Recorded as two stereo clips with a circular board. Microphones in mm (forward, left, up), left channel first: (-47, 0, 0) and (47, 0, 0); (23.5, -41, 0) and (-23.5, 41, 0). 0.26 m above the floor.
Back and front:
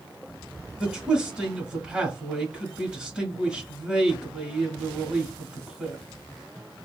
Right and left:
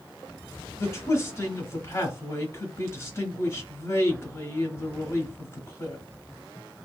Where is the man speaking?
70° right, 1.0 m.